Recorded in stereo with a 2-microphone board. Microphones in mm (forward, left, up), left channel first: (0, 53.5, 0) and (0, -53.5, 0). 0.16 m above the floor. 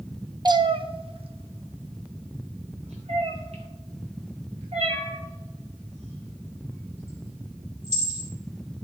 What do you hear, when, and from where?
0.5 s a cat meowing: 40° right (ahead or behind), 0.5 m; by 8.3 s 85° right, 4.5 m